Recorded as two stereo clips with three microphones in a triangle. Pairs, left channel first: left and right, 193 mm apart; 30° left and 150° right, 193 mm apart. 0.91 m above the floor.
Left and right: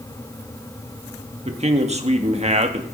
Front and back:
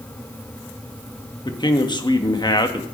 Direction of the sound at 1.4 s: 40° right.